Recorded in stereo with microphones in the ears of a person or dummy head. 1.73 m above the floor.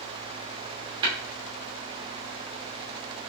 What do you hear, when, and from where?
1.0 s tapping: 30° right (ahead or behind), 1.4 m